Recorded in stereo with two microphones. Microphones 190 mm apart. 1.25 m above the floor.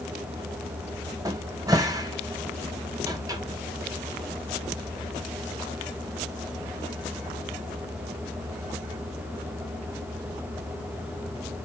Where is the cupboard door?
20° right (ahead or behind), 0.9 m.